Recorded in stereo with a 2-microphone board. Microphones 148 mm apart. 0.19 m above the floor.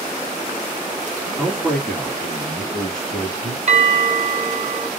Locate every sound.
1.4 s a man speaking: 5° left (ahead or behind), 1.9 m; by 3.6 s 10° left (ahead or behind), 1.7 m
3.7 s a bell: 55° right (ahead or behind), 0.6 m